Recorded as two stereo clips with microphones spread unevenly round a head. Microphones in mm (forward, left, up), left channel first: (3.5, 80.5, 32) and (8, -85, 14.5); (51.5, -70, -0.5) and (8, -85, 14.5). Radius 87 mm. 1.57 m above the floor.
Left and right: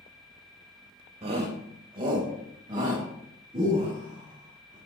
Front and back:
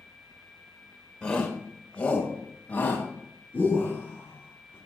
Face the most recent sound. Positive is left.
turn(degrees=-25)